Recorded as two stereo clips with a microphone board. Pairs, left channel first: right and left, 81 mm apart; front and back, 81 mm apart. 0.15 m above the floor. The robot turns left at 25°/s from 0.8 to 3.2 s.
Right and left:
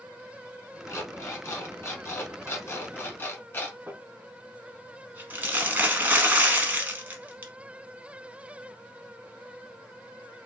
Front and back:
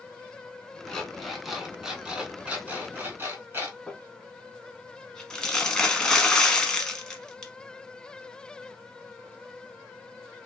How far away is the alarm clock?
About 0.9 m.